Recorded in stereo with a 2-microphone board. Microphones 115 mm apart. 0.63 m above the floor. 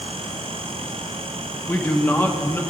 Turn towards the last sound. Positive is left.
turn(degrees=20)  # may be behind; listen again after turning